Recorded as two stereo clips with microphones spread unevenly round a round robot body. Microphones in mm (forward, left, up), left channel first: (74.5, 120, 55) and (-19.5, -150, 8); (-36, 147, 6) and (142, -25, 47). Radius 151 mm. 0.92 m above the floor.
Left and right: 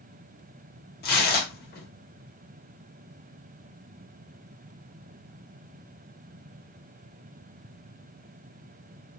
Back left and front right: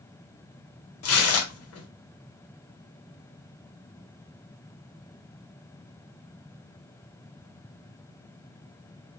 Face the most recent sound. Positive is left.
turn(degrees=135)